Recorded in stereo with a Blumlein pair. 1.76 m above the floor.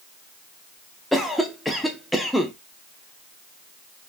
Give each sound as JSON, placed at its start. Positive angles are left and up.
{"t": 1.1, "sound": "a cough", "azimuth_deg": 0, "distance_m": 0.6}